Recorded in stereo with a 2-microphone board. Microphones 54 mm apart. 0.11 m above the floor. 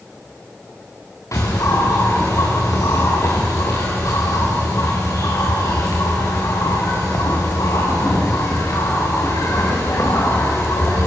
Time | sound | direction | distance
1.3 | a bird | 70° left (ahead or behind) | 5.5 m